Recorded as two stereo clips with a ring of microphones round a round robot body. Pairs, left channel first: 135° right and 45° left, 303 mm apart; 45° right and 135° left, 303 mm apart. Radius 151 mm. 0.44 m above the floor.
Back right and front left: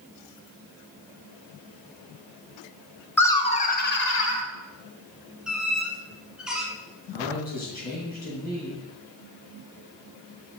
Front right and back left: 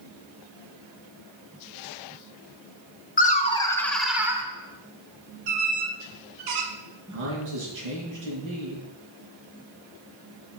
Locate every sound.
3.2 s laughter: 60° right, 0.9 m; by 4.4 s 150° right, 1.2 m
5.5 s a squeak: 135° left, 1.7 m
7.1 s a man speaking: 165° left, 5 m